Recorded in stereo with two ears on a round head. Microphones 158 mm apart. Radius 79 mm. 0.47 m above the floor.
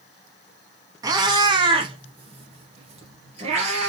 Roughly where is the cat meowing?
Right.